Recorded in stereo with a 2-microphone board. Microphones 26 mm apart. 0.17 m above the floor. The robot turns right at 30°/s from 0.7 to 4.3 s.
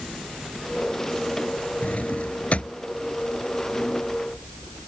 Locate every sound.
1.8 s a drawer: 70° left (ahead or behind); by 4.9 s 15° left (ahead or behind)